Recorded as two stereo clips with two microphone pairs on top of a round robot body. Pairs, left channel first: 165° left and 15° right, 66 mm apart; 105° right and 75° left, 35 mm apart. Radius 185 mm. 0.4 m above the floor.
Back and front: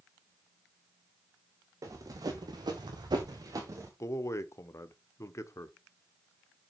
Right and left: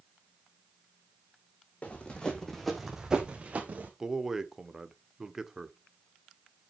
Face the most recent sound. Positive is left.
turn(degrees=145)